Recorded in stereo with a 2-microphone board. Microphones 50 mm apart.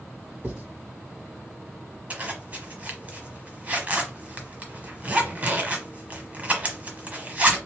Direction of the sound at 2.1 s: 30° right (ahead or behind).